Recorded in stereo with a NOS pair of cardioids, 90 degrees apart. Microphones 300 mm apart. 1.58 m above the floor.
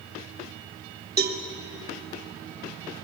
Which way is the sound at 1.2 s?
30° right.